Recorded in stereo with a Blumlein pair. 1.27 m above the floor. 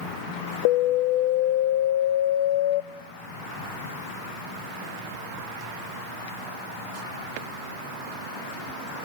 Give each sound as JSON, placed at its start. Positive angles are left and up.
{"t": 0.7, "sound": "an alarm", "azimuth_deg": 50, "distance_m": 0.6}